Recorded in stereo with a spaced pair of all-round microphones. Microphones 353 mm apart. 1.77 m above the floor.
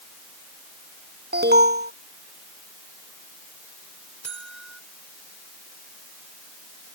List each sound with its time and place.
1.3 s an alarm: 30° right (ahead or behind)
4.2 s a buzzer: 45° right (ahead or behind)